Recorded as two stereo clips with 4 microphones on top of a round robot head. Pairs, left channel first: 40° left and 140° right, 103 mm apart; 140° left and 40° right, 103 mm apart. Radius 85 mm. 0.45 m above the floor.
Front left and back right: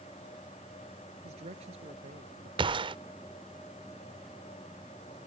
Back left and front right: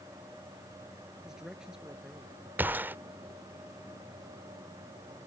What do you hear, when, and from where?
1.2 s a man speaking: 125° right
2.6 s a gunshot: 110° right